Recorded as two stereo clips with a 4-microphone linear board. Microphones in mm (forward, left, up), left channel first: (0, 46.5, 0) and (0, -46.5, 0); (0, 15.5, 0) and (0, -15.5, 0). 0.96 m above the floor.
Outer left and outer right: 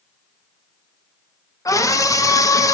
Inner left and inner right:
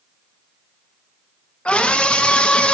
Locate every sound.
1.6 s a scream: 35° left (ahead or behind), 0.8 m